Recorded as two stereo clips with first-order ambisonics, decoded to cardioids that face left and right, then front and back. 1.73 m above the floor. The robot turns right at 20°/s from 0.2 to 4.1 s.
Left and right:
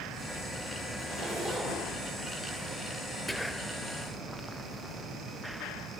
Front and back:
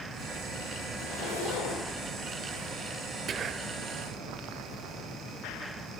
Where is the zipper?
10° right, 7 m; by 1.9 s 5° left, 7 m.